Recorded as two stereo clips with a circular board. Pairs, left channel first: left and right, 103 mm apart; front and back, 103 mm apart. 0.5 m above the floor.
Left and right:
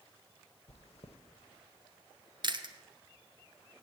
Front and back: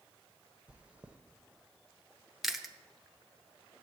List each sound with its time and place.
0.7 s chewing: 100° left, 0.7 m
2.4 s chewing: 95° right, 0.7 m